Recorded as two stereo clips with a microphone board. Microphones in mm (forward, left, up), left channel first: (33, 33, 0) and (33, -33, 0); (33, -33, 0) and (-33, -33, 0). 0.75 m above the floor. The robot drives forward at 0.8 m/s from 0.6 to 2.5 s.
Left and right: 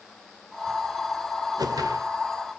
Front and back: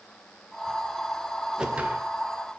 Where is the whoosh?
100° right, 1.4 m; by 2.1 s 115° right, 1.5 m.